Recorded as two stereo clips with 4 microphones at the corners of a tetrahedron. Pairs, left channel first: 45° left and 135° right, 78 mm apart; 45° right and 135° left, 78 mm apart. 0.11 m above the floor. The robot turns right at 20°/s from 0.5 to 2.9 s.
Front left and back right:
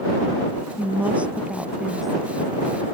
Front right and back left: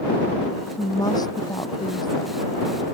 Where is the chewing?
No chewing in this recording.